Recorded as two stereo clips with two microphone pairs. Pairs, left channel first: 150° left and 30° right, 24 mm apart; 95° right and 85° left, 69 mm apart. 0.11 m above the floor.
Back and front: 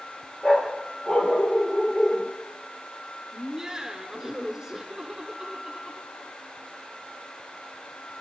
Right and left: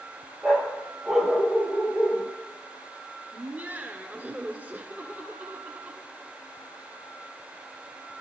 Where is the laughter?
30° left, 1.5 m.